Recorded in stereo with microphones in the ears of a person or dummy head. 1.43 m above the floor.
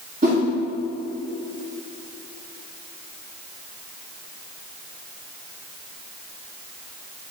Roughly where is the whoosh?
Right.